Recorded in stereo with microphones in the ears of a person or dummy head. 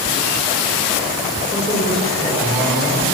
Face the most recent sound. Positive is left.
turn(degrees=0)  # may be behind; listen again after turning